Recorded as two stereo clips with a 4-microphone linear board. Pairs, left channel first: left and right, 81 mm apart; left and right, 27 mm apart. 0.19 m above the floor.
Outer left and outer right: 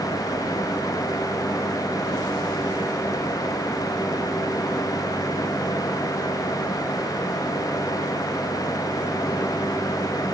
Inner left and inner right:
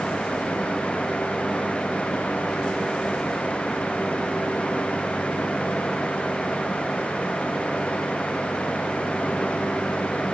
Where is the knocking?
No knocking in this recording.